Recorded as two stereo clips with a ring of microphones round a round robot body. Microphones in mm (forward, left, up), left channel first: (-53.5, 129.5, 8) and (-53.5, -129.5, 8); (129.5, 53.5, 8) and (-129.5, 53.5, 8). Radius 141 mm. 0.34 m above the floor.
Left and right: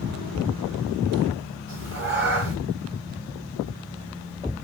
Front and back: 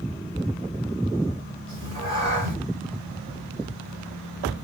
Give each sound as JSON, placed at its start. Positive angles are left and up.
{"t": 1.7, "sound": "a cat meowing", "azimuth_deg": -130, "distance_m": 1.8}